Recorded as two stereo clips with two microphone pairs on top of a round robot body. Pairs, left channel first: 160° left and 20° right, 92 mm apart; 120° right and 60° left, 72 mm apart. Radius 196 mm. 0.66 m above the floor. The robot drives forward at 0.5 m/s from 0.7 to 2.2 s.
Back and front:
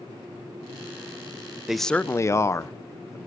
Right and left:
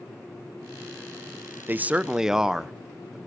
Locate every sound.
1.7 s a man speaking: 45° left, 0.6 m; by 3.2 s 130° left, 0.5 m